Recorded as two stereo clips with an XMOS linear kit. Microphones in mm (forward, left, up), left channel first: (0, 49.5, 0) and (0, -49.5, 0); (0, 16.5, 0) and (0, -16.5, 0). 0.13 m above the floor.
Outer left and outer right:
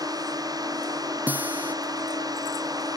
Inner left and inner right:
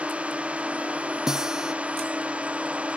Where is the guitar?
15° right (ahead or behind).